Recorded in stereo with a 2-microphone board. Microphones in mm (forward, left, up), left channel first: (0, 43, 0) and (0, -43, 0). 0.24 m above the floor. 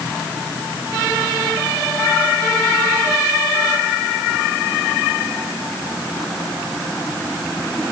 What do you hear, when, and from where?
Only background noise.